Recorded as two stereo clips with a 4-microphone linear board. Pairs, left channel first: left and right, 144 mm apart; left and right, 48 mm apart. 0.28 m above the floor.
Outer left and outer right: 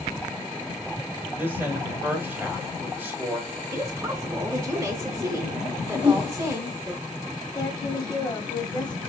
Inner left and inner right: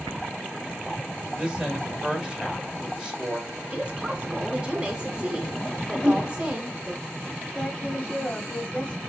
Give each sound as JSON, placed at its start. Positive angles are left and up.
{"t": 1.4, "sound": "a woman speaking", "side_deg": -15, "distance_m": 1.4}
{"t": 3.7, "sound": "a woman speaking", "side_deg": -20, "distance_m": 1.0}
{"t": 5.9, "sound": "a whoosh", "side_deg": 20, "distance_m": 3.0}
{"t": 7.5, "sound": "a woman speaking", "side_deg": 30, "distance_m": 1.1}